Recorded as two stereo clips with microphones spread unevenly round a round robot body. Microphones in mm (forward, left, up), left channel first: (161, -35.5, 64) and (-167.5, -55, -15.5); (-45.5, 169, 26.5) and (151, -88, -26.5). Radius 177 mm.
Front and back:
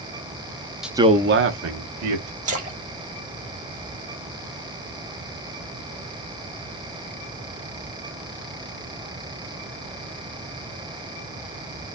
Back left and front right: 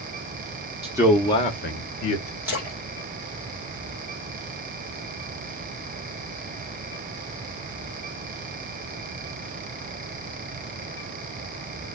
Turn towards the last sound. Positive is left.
turn(degrees=-130)